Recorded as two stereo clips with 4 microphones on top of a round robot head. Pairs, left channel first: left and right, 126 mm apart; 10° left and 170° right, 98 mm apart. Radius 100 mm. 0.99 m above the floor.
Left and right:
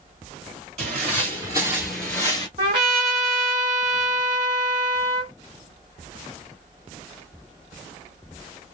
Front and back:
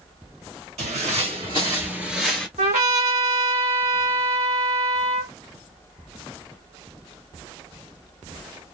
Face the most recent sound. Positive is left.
turn(degrees=-150)